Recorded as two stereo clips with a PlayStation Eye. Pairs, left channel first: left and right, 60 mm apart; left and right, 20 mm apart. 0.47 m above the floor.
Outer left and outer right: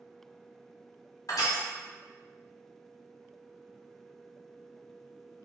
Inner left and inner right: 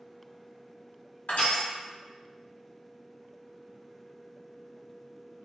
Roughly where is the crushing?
Left.